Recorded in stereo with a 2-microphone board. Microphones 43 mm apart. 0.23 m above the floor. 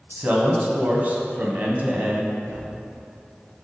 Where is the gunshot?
75° right (ahead or behind), 1.7 m.